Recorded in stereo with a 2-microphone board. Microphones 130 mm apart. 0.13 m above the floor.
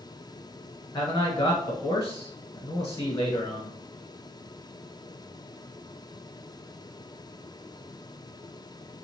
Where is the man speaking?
30° left (ahead or behind), 1.1 m.